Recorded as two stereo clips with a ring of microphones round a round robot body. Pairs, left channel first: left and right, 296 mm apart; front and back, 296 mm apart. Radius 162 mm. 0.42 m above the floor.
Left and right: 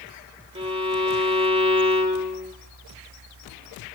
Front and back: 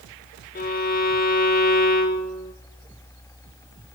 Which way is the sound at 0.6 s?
35° right.